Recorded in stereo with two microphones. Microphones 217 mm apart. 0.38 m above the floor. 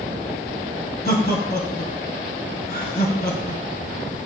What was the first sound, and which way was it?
Laughter, 45° left (ahead or behind).